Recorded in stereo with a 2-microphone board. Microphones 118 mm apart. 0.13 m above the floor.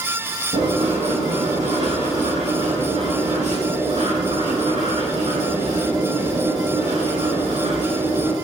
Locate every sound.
0.5 s writing: 75° right (ahead or behind), 6.5 m